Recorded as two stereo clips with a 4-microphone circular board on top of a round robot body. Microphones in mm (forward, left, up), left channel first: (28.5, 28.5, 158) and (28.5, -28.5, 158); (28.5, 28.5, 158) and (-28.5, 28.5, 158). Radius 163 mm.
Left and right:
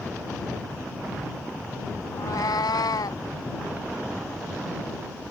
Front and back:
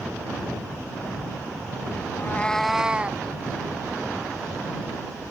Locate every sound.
2.1 s a cat meowing: 50° left; by 3.2 s 115° left